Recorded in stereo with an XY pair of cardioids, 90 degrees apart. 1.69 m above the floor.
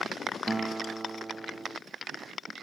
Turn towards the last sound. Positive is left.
turn(degrees=-20)